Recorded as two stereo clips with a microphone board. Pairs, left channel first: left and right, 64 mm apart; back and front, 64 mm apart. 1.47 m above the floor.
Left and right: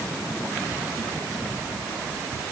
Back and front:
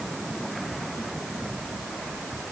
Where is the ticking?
I don't hear ticking.